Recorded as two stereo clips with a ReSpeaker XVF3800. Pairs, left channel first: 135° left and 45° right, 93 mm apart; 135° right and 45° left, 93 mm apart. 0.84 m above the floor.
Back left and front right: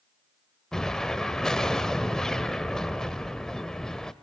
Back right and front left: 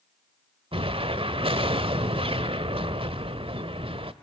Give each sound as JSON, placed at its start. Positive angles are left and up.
{"t": 0.7, "sound": "an explosion", "azimuth_deg": 50, "distance_m": 1.2}